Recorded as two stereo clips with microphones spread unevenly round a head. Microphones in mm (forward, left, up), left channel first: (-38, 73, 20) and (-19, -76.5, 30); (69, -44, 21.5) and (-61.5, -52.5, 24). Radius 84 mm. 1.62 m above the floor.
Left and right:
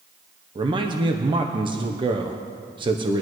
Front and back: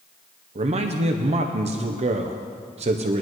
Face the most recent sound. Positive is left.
turn(degrees=-140)